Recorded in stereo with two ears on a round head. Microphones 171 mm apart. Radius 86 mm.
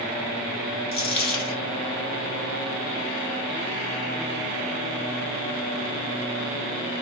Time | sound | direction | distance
0.9 | a dropped coin | 30° left (ahead or behind) | 0.9 m